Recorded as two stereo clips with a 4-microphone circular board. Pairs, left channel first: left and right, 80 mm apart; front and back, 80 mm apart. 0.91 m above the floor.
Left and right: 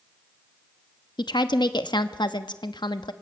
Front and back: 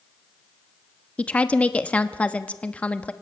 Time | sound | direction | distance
1.2 | a woman speaking | 75° left | 1.0 m